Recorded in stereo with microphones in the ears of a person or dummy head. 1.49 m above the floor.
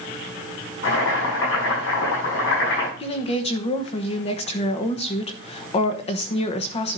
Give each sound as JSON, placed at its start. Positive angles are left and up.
{"t": 0.8, "sound": "boiling", "side_deg": 70, "distance_m": 6.5}
{"t": 3.0, "sound": "a woman speaking", "side_deg": 30, "distance_m": 1.0}